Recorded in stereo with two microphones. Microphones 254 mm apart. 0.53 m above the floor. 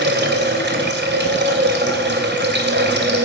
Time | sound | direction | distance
0.0 | running water | 45° right (ahead or behind) | 2.5 m